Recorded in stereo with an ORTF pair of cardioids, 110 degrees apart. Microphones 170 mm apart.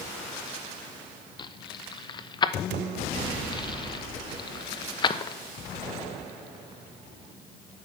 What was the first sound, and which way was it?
Keys jangling, 25° left.